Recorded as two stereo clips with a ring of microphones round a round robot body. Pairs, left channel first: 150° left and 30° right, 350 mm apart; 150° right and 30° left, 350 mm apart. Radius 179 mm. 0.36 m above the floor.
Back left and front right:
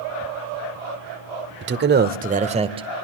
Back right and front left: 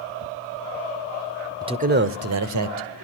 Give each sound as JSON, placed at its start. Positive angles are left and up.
{"t": 1.6, "sound": "a man speaking", "azimuth_deg": -40, "distance_m": 1.2}